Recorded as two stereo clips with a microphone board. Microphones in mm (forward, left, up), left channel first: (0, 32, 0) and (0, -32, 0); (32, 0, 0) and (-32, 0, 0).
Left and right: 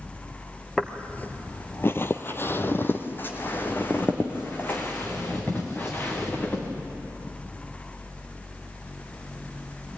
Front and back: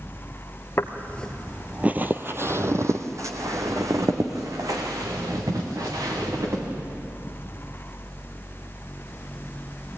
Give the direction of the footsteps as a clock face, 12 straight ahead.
11 o'clock.